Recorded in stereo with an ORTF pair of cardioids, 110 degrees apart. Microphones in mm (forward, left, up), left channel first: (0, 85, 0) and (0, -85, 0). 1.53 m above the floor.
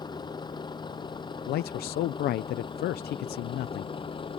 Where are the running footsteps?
No running footsteps in this recording.